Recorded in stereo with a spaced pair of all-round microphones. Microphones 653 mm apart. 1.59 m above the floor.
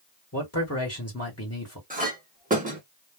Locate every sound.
0.3 s a man speaking: 25° left (ahead or behind), 1.2 m
1.9 s a clink: 10° right (ahead or behind), 0.9 m